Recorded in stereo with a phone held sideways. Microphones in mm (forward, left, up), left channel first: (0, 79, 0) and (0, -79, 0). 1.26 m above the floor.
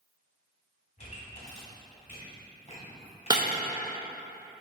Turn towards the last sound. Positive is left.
turn(degrees=-25)  # may be behind; listen again after turning